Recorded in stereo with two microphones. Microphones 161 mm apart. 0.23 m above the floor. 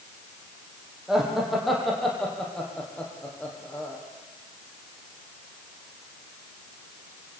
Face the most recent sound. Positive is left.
turn(degrees=10)  # may be behind; listen again after turning